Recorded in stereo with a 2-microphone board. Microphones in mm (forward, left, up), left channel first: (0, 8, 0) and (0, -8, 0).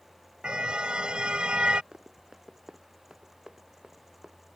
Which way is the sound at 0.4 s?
70° right (ahead or behind).